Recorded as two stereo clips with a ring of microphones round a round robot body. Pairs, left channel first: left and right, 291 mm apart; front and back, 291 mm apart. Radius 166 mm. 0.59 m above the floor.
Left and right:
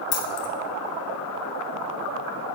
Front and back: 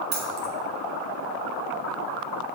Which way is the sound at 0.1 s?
120° left.